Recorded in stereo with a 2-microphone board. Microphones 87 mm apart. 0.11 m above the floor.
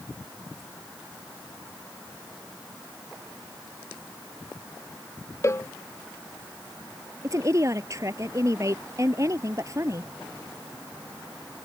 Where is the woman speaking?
35° right (ahead or behind).